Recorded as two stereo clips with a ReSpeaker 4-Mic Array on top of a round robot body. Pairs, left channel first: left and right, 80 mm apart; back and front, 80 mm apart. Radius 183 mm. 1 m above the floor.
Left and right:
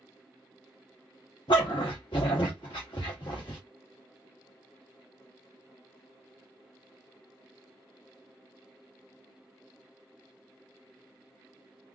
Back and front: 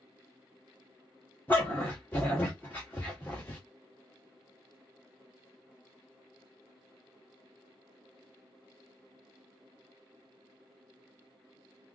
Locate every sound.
1.5 s a dog barking: 115° left, 0.6 m